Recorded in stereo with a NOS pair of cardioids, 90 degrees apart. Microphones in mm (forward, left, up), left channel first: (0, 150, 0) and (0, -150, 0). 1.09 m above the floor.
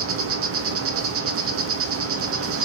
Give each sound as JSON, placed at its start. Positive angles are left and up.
{"t": 0.0, "sound": "an insect", "azimuth_deg": -50, "distance_m": 0.8}